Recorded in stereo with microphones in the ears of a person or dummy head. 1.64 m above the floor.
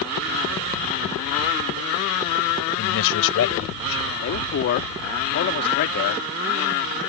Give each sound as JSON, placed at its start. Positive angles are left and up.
{"t": 2.8, "sound": "a man speaking", "side_deg": 75}
{"t": 4.2, "sound": "a man speaking", "side_deg": 50}